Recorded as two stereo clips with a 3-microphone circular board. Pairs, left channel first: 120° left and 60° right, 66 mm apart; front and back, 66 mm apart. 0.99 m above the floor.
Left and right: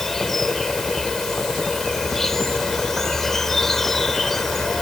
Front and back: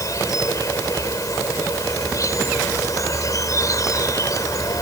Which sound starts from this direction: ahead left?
An insect, at 0.0 s.